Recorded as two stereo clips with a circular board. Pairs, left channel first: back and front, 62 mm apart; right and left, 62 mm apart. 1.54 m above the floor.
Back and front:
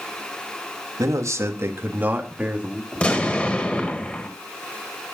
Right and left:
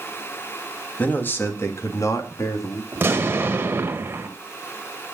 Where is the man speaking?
25° right, 2.5 m; by 2.8 s 75° right, 3.5 m.